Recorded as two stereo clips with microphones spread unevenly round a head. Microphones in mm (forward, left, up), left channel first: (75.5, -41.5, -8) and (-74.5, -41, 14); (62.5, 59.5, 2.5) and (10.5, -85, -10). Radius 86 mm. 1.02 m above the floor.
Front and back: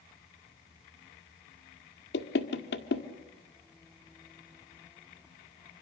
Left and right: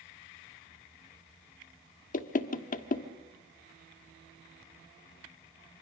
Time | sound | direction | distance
2.1 | knocking | 35° left | 1.4 m